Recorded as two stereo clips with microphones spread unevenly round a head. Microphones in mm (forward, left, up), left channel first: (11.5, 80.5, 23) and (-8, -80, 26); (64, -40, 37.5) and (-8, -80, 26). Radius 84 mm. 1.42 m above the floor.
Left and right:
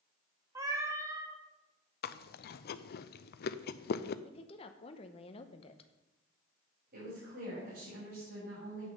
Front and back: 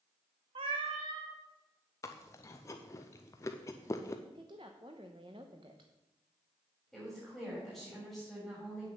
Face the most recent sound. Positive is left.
turn(degrees=-65)